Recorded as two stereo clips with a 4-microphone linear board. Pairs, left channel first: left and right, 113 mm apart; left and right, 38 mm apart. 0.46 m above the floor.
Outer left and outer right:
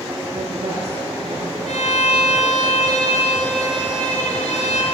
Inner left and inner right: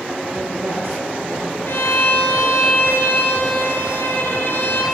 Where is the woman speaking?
70° right (ahead or behind), 8.5 m.